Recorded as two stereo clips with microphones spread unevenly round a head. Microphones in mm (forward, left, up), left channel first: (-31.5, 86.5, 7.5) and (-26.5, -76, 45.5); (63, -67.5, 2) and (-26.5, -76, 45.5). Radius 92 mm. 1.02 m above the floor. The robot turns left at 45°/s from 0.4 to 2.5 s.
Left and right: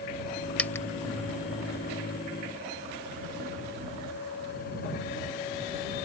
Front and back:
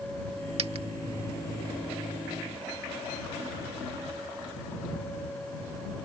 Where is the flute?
No flute in this recording.